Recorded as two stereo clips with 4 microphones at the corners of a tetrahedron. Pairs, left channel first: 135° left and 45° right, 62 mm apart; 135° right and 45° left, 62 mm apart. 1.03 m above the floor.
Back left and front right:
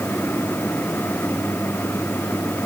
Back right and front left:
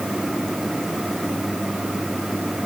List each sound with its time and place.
Only background noise.